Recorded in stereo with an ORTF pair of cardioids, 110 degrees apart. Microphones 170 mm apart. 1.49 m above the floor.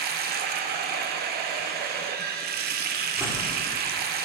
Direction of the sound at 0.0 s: 70° right.